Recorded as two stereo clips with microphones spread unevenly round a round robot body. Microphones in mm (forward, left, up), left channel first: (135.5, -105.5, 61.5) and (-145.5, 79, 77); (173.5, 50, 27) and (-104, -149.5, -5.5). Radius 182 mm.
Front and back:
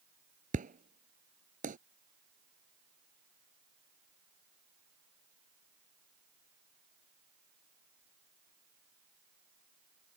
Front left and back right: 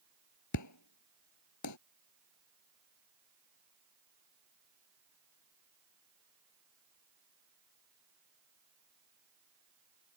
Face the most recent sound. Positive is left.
turn(degrees=80)